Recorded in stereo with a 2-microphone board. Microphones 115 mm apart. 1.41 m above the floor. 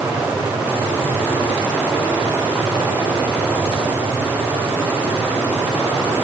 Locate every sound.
Only background noise.